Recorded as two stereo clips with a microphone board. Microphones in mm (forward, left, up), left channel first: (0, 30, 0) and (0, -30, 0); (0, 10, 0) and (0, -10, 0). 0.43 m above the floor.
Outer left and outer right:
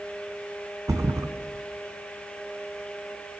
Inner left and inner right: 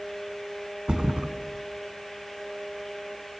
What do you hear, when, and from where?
0.9 s a thud: 70° right (ahead or behind), 0.9 m